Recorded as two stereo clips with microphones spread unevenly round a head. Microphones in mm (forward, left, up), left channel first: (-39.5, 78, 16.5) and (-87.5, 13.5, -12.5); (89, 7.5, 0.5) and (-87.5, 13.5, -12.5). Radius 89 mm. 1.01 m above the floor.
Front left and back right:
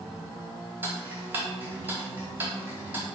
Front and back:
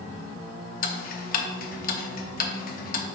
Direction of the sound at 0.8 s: 40° right.